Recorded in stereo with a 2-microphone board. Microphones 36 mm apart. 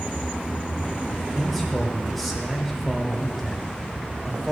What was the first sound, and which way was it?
A man speaking, centre (ahead or behind).